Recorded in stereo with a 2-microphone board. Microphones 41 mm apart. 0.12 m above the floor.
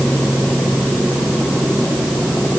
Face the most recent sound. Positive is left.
No sound to turn to.